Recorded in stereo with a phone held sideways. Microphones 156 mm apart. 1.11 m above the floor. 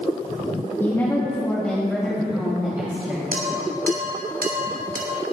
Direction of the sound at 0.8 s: 20° left (ahead or behind).